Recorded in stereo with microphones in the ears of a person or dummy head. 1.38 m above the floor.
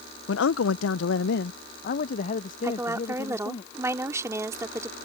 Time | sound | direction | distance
0.3 | a man speaking | 80° left | ?
2.6 | a woman speaking | 10° right (ahead or behind) | ?